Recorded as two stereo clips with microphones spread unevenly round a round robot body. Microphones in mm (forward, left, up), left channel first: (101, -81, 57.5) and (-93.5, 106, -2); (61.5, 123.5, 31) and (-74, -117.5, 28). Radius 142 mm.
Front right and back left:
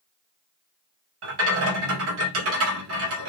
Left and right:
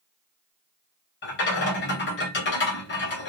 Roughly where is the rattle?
Left.